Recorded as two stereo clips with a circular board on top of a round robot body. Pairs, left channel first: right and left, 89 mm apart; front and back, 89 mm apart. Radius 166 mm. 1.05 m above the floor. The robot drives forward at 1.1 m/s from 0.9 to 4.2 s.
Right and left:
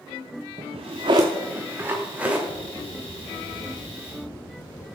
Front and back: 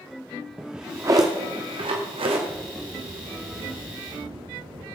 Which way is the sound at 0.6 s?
100° left.